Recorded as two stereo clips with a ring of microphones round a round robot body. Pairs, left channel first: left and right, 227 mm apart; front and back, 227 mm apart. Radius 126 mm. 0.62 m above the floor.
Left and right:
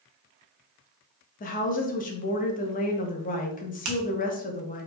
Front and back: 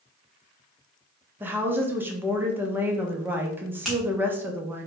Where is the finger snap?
90° right, 0.9 m.